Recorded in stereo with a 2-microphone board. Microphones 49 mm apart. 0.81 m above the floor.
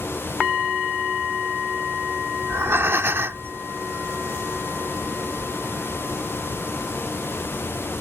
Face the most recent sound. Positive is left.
turn(degrees=-55)  # may be behind; listen again after turning